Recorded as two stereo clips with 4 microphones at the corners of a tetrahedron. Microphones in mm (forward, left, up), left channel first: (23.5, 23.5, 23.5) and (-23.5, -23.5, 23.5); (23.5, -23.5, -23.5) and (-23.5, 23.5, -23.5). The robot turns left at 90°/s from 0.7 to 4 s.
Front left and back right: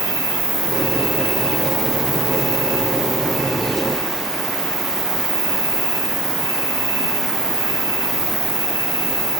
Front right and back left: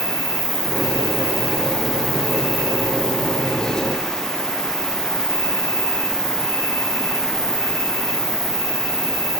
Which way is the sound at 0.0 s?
170° right.